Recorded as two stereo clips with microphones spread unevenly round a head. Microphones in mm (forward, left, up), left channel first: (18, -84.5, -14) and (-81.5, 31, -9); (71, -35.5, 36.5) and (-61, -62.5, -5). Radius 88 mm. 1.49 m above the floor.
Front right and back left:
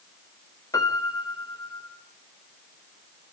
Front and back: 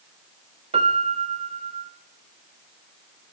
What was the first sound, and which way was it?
A piano, 120° right.